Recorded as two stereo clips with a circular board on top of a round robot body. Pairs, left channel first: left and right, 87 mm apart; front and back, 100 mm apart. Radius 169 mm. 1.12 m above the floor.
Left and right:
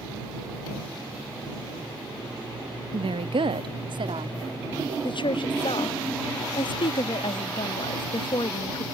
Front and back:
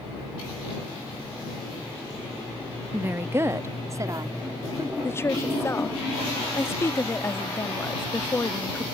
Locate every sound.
2.9 s a woman speaking: 105° right; by 4.9 s 125° right
5.0 s a woman speaking: 65° left